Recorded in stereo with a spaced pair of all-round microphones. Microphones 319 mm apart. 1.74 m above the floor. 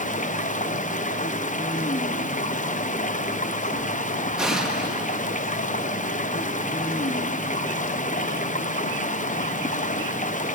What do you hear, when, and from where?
0.0 s running water: 25° left (ahead or behind), 0.7 m
4.4 s an explosion: centre (ahead or behind), 1.9 m